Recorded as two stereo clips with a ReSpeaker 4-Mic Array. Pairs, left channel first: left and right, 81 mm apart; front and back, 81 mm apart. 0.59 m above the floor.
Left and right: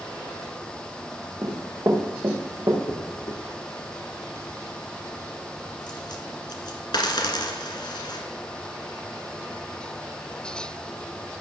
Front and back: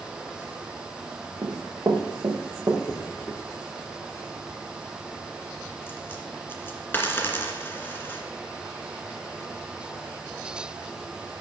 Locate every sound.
1.4 s running footsteps: 140° right, 3 m; by 2.8 s 125° right, 3.5 m
2.9 s a dropped coin: 65° left, 1.9 m